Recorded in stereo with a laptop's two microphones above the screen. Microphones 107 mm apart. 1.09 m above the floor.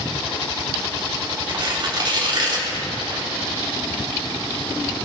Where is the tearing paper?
50° right (ahead or behind), 3 m.